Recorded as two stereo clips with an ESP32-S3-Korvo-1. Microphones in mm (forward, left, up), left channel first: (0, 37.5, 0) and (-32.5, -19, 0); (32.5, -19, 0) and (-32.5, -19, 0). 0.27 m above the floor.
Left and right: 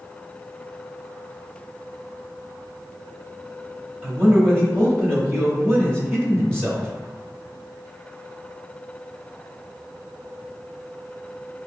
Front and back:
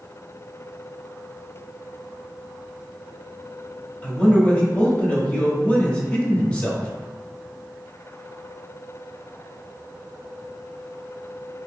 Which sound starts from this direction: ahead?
A man speaking, at 4.0 s.